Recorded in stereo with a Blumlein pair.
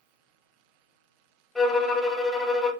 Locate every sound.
1.6 s a violin: straight ahead, 0.5 m